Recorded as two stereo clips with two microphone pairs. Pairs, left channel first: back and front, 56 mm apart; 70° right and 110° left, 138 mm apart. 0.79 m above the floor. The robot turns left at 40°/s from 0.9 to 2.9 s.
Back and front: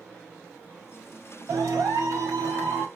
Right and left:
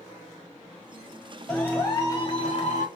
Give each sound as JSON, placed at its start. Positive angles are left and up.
{"t": 1.5, "sound": "a clap", "azimuth_deg": 15, "distance_m": 1.3}